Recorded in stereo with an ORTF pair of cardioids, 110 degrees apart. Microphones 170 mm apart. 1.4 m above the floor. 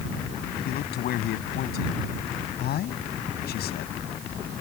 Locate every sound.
0.7 s a man speaking: 70° left